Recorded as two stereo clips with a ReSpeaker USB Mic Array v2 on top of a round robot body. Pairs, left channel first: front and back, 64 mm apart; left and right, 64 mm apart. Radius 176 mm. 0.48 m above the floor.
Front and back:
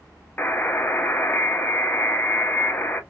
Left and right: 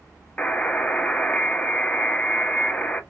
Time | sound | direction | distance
0.4 | a buzzer | 35° left | 1.1 m